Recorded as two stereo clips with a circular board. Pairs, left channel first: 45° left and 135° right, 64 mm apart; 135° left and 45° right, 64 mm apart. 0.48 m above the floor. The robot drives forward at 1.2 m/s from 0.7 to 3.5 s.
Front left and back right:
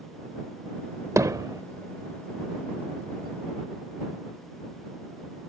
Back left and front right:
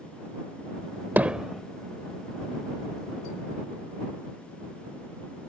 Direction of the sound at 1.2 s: 105° right.